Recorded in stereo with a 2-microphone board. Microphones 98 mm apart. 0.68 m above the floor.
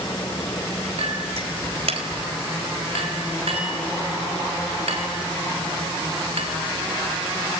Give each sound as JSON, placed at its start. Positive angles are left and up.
{"t": 1.0, "sound": "a clink", "side_deg": -80, "distance_m": 3.0}